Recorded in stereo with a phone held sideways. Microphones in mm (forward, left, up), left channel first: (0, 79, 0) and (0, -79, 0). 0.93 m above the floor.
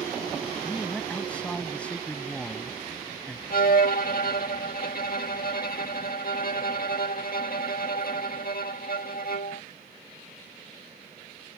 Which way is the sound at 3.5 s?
65° left (ahead or behind).